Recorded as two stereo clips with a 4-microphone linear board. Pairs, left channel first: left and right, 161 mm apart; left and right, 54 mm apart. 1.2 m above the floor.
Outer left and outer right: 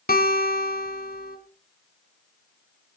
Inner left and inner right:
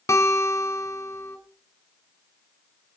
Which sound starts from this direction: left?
A guitar, at 0.1 s.